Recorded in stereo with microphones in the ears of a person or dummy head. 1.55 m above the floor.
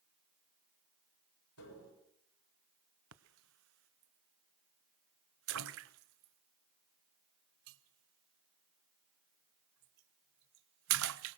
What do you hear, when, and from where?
1.6 s tapping: 90° left, 6 m
3.1 s a splash: 75° right (ahead or behind), 0.8 m